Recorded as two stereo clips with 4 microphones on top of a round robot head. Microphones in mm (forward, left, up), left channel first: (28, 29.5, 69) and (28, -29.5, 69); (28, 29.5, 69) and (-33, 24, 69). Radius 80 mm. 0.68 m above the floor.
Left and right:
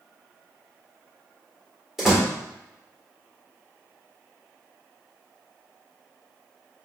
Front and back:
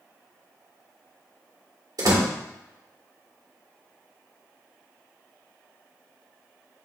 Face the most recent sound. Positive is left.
turn(degrees=180)